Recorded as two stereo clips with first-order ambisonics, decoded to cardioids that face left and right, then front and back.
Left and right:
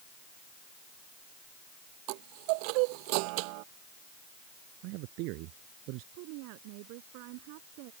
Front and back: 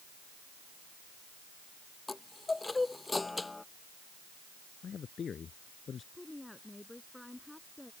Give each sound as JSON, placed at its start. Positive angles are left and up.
{"t": 2.1, "sound": "a chime", "azimuth_deg": -80}
{"t": 4.8, "sound": "a man speaking", "azimuth_deg": -65}
{"t": 6.1, "sound": "a woman speaking", "azimuth_deg": -85}